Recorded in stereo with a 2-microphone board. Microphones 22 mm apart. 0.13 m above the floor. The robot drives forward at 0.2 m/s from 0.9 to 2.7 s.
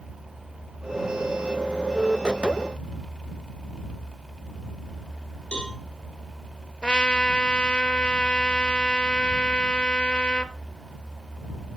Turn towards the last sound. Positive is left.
turn(degrees=50)  # may be behind; listen again after turning